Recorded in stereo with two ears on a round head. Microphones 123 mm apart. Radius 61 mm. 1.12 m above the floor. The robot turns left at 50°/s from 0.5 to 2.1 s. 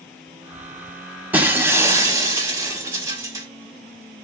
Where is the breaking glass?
15° right (ahead or behind), 1.0 m; by 3.5 s 20° right (ahead or behind), 1.0 m.